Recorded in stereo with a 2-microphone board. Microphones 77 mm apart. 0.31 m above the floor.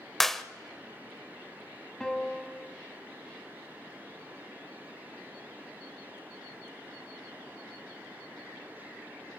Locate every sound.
0.2 s a clap: 5° left (ahead or behind), 0.8 m
2.0 s a piano: 10° left (ahead or behind), 2 m